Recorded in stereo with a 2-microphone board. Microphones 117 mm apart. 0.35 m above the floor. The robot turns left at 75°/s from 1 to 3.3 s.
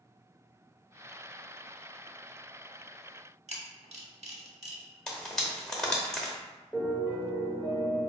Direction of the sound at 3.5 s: 70° right (ahead or behind).